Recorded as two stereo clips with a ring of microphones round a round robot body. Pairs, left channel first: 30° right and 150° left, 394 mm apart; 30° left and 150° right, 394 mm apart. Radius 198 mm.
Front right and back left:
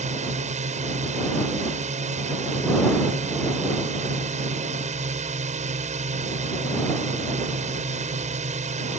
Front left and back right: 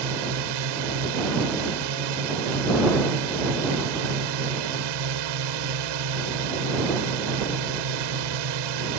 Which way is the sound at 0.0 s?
140° right.